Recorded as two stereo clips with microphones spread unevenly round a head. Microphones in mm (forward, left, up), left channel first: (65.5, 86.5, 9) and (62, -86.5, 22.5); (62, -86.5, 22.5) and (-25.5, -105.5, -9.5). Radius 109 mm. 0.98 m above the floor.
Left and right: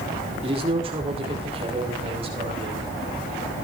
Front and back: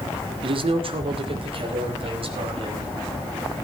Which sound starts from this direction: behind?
A man speaking, at 0.4 s.